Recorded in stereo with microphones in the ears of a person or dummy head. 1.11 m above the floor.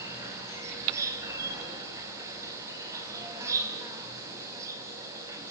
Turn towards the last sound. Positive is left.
turn(degrees=-15)  # may be behind; listen again after turning